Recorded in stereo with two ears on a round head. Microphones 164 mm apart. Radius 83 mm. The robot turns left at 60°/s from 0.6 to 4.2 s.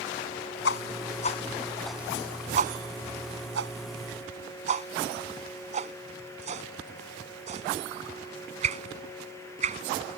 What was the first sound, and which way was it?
A whoosh, 70° left (ahead or behind).